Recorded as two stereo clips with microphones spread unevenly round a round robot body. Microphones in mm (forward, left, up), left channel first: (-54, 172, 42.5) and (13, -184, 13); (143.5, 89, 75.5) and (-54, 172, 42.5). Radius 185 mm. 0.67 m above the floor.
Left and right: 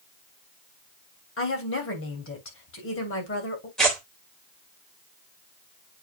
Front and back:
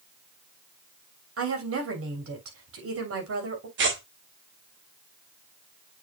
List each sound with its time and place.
1.4 s a woman speaking: 160° left, 3 m
3.8 s tearing paper: 170° right, 2.5 m